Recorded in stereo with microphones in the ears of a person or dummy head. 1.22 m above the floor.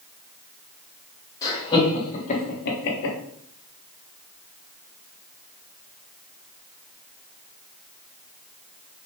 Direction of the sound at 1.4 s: 15° left (ahead or behind).